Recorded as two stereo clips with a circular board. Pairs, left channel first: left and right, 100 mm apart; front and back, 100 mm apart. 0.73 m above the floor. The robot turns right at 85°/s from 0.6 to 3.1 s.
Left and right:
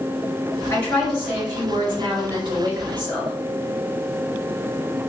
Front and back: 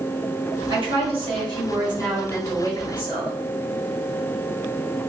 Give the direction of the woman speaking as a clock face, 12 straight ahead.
7 o'clock.